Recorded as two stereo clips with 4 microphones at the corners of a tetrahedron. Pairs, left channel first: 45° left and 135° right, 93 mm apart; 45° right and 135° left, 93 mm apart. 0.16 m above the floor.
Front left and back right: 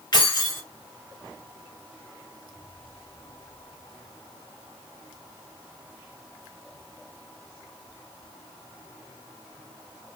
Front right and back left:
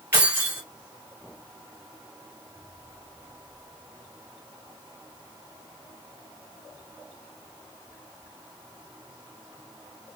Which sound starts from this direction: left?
Keys jangling, at 0.1 s.